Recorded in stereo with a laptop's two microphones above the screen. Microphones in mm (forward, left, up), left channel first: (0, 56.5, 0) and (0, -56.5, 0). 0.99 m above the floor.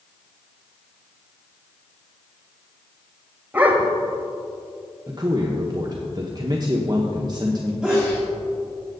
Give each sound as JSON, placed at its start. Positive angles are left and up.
{"t": 3.5, "sound": "a dog barking", "side_deg": -15, "distance_m": 1.5}
{"t": 5.1, "sound": "a man speaking", "side_deg": -35, "distance_m": 1.0}
{"t": 7.8, "sound": "a sneeze", "side_deg": -10, "distance_m": 2.0}